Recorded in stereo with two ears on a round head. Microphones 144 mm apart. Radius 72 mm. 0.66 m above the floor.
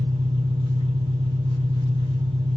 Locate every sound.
0.0 s an engine running: 30° right (ahead or behind), 4.5 m